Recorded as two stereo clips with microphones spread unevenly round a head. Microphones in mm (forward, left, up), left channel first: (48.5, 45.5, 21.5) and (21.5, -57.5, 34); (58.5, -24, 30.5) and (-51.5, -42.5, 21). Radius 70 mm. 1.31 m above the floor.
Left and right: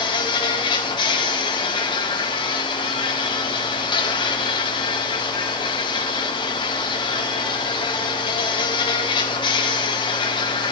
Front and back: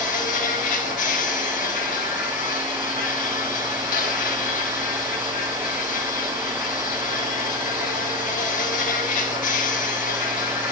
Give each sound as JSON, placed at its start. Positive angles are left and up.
{"t": 0.0, "sound": "an insect", "azimuth_deg": 30, "distance_m": 2.0}